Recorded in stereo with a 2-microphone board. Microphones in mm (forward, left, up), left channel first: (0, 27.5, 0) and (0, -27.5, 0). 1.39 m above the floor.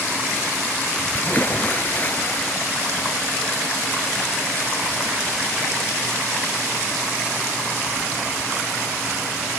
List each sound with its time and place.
1.1 s a splash: 35° left (ahead or behind)